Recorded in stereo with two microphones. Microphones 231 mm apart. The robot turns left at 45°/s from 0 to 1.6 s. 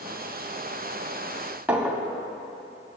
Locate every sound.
1.7 s a clink: 5° right (ahead or behind), 0.7 m